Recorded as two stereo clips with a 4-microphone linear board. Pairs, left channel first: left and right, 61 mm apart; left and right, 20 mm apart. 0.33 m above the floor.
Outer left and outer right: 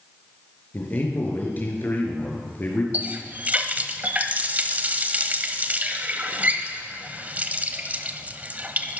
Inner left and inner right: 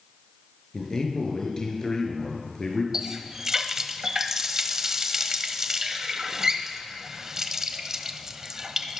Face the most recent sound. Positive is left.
turn(degrees=-30)  # may be behind; listen again after turning